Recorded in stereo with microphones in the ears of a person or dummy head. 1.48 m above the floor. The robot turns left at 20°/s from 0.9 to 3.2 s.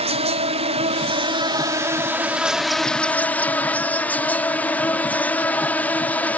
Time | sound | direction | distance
0.0 | an insect | 145° right | ?